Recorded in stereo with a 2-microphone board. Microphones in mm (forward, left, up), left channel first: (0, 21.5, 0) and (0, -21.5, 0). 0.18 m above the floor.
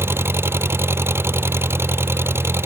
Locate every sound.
0.0 s an engine running: 70° right (ahead or behind)